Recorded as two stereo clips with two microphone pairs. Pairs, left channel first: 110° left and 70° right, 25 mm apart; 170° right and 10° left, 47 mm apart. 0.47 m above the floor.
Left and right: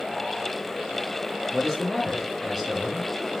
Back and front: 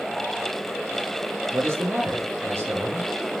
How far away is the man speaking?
About 4 m.